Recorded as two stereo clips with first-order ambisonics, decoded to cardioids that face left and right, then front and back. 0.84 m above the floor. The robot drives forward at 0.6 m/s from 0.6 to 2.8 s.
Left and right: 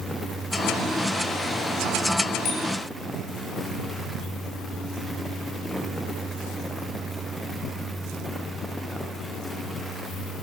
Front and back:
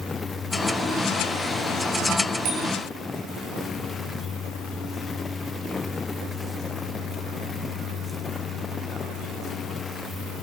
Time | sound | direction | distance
2.5 | a bicycle bell | 140° left | 6 m